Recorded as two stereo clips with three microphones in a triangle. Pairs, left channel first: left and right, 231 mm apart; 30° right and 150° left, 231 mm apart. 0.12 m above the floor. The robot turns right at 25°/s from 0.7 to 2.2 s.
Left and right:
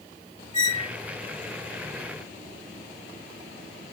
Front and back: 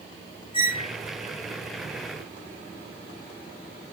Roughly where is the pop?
No pop in this recording.